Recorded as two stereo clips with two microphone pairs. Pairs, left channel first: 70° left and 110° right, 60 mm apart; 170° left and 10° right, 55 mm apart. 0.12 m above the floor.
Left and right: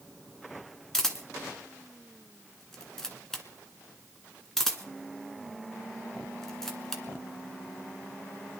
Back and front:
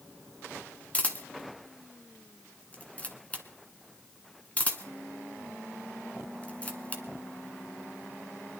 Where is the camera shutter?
145° left, 1.6 m.